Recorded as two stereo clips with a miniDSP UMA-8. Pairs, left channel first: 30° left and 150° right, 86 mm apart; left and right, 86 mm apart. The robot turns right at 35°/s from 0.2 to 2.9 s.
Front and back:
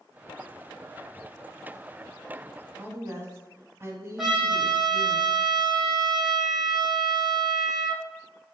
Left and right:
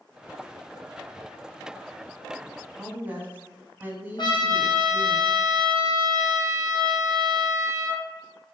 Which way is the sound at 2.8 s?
140° right.